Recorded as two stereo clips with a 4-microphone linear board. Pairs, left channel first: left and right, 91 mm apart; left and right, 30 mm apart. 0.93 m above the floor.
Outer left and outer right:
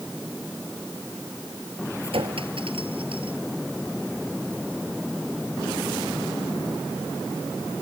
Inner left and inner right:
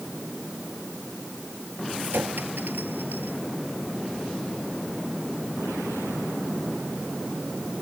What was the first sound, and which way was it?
A clink, 80° right.